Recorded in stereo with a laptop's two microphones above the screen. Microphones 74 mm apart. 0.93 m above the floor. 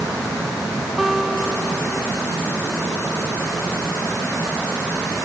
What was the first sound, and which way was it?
A guitar, centre (ahead or behind).